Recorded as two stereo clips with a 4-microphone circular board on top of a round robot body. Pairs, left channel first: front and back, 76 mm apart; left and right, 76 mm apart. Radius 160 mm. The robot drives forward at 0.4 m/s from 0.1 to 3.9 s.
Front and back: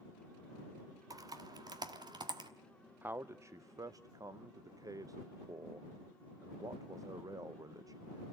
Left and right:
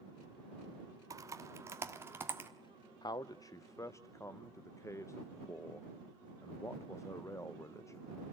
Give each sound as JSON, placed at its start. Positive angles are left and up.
{"t": 1.1, "sound": "typing on a keyboard", "azimuth_deg": -135, "distance_m": 0.9}
{"t": 3.0, "sound": "a man speaking", "azimuth_deg": 115, "distance_m": 0.6}